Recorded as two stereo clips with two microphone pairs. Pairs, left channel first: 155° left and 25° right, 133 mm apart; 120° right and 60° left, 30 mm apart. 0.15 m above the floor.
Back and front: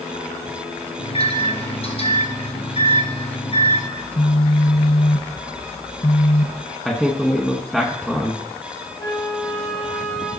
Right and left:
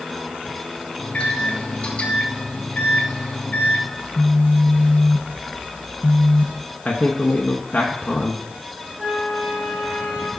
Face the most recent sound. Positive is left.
turn(degrees=90)